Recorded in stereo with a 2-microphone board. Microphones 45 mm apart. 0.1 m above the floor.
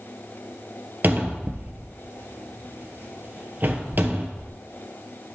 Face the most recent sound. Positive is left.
turn(degrees=-45)  # may be behind; listen again after turning